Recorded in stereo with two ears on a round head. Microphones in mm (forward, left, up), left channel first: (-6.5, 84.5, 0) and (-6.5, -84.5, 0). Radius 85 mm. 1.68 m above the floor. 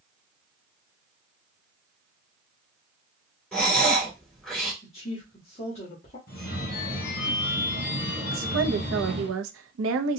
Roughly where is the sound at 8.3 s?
Right.